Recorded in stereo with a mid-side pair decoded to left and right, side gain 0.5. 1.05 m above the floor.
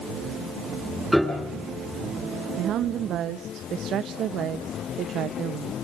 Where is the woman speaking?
65° right, 0.9 m.